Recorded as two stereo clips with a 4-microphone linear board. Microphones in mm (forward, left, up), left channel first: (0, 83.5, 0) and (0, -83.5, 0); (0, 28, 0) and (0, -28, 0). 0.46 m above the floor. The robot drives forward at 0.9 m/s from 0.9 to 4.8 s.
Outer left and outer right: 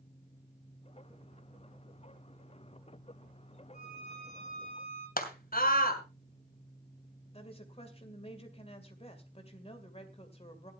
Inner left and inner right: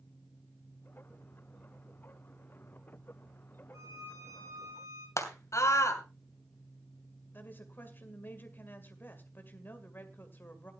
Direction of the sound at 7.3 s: 35° left (ahead or behind).